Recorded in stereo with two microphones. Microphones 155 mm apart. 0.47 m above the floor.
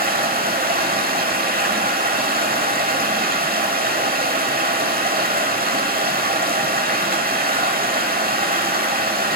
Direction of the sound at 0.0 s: 75° right (ahead or behind).